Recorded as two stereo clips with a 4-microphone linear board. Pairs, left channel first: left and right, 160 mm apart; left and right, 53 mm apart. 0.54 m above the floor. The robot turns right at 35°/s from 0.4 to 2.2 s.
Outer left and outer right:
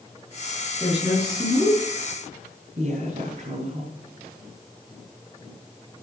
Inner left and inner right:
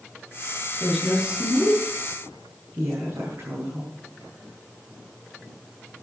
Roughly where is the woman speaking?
Behind.